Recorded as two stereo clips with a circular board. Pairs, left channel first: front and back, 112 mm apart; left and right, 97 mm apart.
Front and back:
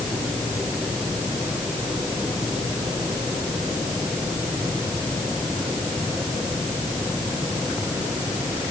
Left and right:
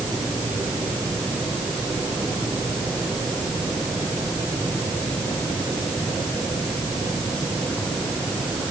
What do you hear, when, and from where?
Only background noise.